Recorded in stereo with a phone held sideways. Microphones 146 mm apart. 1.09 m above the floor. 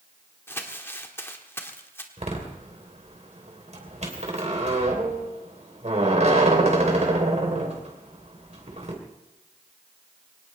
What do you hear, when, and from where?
0.5 s crumpling: 15° left (ahead or behind), 1.6 m
2.2 s a door slam: 50° right (ahead or behind), 3 m